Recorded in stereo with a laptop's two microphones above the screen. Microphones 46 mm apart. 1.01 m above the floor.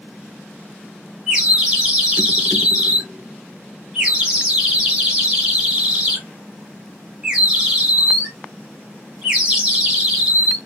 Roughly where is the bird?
Centre.